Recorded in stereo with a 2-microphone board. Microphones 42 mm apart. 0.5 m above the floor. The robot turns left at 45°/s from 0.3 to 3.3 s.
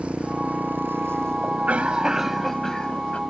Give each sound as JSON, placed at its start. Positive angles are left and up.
{"t": 0.0, "sound": "a motorcycle", "azimuth_deg": -30}
{"t": 1.4, "sound": "a cough", "azimuth_deg": -135}